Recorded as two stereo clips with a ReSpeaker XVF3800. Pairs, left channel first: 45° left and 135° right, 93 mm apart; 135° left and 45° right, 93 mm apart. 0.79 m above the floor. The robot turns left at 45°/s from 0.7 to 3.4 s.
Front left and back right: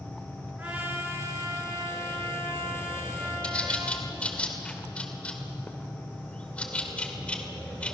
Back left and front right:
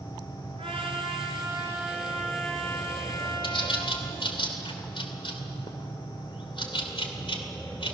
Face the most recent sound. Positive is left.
turn(degrees=120)